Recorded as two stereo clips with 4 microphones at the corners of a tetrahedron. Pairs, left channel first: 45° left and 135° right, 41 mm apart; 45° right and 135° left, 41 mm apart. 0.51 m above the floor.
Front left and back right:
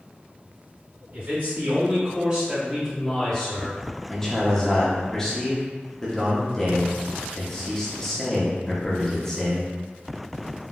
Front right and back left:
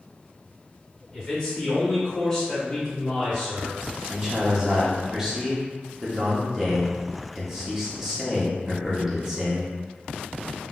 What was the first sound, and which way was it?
A man speaking, 120° right.